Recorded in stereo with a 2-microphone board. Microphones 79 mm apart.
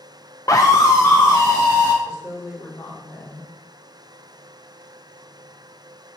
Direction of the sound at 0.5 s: 40° left (ahead or behind).